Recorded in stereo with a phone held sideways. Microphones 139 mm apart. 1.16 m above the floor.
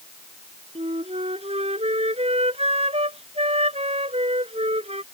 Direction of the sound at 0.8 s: 50° right (ahead or behind).